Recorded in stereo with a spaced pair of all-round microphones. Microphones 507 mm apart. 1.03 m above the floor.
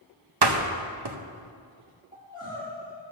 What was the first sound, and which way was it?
A door slam, 50° right (ahead or behind).